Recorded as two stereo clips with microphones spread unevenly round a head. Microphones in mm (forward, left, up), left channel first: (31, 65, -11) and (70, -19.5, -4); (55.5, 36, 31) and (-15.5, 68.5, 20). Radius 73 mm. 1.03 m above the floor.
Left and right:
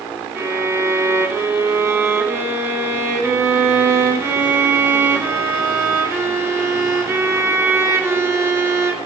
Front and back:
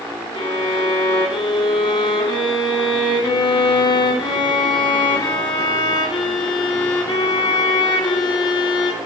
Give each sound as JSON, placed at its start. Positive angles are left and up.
{"t": 0.3, "sound": "a violin", "azimuth_deg": 0, "distance_m": 1.3}